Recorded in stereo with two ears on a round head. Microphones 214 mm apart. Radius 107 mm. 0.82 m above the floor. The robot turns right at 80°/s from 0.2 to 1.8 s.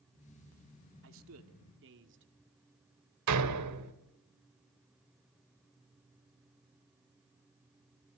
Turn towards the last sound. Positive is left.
turn(degrees=-85)